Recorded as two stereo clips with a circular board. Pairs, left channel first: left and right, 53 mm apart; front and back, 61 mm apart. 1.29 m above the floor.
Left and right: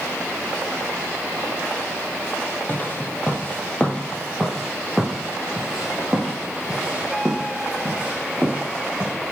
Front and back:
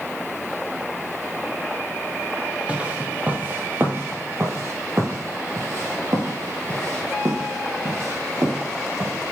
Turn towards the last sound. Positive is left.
turn(degrees=-150)